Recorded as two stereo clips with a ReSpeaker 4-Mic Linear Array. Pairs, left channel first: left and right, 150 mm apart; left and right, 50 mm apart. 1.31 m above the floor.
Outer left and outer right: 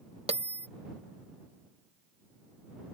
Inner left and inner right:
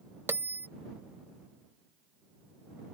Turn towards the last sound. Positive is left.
turn(degrees=-40)  # may be behind; listen again after turning